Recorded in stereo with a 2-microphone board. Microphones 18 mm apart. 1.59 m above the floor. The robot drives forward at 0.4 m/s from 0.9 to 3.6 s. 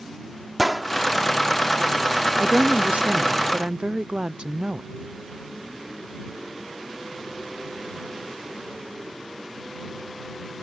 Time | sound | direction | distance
0.6 | a gunshot | 5° right (ahead or behind) | ?
2.4 | a woman speaking | 70° right (ahead or behind) | ?